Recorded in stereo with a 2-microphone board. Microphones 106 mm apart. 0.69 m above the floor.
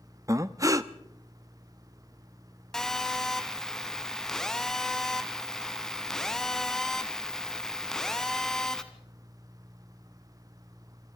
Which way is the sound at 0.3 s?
30° right (ahead or behind).